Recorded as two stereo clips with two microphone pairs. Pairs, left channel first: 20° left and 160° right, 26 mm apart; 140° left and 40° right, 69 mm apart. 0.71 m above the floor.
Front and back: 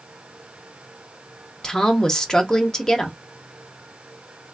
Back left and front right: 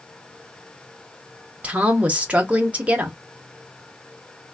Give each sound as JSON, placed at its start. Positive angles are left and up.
{"t": 1.6, "sound": "a woman speaking", "azimuth_deg": 5, "distance_m": 0.6}